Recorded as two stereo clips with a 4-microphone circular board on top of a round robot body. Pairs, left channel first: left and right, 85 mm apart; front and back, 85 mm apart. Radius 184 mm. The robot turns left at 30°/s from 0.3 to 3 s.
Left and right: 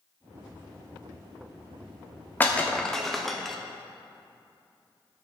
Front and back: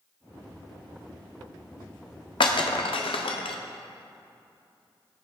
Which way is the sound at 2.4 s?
20° left.